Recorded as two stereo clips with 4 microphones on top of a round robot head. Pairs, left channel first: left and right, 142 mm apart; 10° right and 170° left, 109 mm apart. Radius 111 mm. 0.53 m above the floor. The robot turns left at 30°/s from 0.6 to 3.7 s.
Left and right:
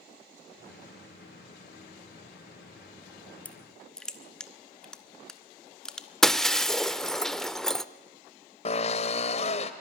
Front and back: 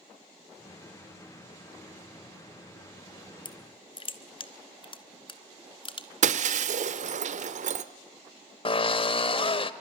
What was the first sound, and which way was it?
Crushing, 15° left.